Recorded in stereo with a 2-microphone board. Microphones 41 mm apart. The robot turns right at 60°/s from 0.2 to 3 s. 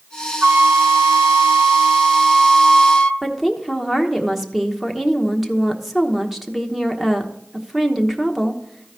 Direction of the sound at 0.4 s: 120° right.